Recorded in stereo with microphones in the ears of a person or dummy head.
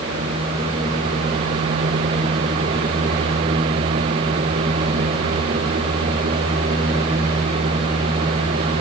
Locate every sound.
Only background noise.